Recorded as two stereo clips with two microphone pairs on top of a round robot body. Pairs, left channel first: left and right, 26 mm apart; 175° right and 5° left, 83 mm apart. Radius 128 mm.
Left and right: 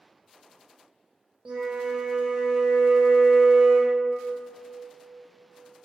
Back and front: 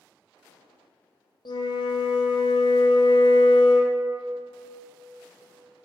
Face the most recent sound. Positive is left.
turn(degrees=-145)